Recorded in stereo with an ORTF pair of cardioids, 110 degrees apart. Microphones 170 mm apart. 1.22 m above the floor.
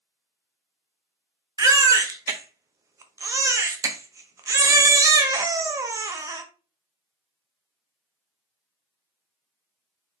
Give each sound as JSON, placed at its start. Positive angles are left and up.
{"t": 1.6, "sound": "a baby crying", "azimuth_deg": -20, "distance_m": 0.5}